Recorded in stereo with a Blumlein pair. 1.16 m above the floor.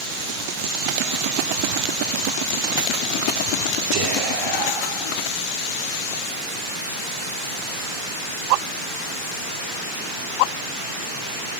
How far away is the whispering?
About 3.5 m.